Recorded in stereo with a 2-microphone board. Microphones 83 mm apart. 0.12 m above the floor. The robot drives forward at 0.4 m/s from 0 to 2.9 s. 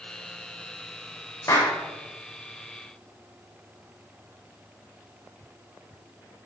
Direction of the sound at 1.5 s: 40° left (ahead or behind).